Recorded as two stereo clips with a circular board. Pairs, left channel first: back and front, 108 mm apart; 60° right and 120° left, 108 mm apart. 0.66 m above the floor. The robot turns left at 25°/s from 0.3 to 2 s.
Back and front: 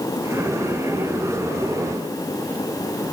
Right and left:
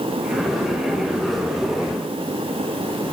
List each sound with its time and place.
Only background noise.